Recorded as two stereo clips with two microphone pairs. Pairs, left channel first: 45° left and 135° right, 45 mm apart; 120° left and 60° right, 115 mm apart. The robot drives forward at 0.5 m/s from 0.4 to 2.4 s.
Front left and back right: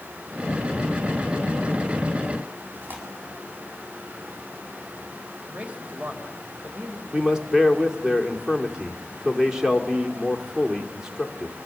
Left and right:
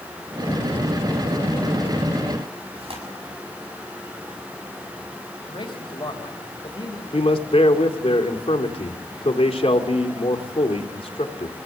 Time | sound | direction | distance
2.8 | tearing paper | 90° right | 7 m
5.5 | a man speaking | 165° left | 3 m
7.1 | a man speaking | 150° left | 2.5 m